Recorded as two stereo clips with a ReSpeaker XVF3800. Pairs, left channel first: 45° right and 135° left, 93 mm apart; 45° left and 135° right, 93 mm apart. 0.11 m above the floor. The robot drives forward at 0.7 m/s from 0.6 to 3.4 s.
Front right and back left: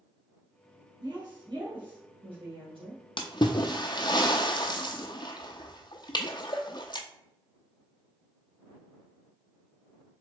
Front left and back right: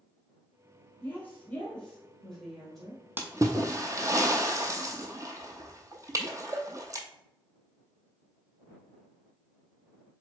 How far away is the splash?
About 0.7 m.